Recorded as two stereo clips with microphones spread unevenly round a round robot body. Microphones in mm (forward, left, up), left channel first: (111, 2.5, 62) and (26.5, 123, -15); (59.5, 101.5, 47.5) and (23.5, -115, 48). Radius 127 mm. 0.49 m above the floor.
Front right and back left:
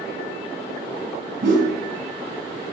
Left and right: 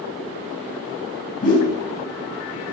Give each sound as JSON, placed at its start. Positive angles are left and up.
{"t": 1.4, "sound": "a whoosh", "azimuth_deg": 135, "distance_m": 3.0}